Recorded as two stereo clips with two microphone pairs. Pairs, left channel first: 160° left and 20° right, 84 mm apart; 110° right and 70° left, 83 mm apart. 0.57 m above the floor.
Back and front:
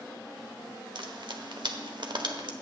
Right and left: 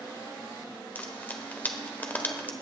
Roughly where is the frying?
Ahead right.